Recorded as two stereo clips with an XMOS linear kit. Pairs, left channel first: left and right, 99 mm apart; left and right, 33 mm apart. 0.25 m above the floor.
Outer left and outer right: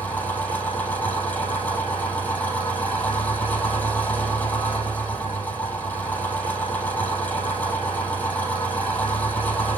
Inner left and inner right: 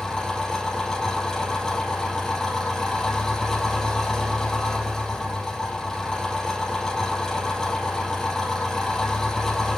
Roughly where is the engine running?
Centre.